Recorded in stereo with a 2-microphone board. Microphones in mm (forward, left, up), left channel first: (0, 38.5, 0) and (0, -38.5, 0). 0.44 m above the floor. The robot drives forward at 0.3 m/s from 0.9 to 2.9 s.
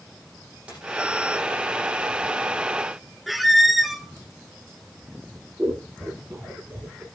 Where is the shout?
I don't hear a shout.